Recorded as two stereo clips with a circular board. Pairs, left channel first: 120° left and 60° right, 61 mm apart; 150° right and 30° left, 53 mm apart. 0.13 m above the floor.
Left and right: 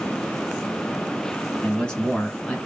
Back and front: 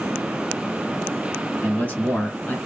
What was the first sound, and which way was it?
A man speaking, straight behind.